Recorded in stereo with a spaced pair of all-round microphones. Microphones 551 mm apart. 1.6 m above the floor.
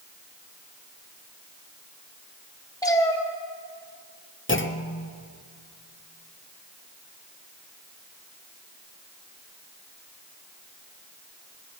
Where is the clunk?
25° left (ahead or behind), 0.7 m.